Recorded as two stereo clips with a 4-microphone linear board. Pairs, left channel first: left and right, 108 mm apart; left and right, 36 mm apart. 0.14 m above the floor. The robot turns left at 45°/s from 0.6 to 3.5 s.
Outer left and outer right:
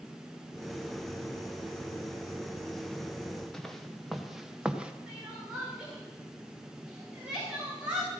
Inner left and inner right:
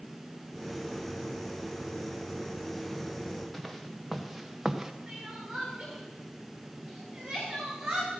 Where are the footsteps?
5° left (ahead or behind), 1.8 m; by 4.9 s 10° right (ahead or behind), 1.2 m.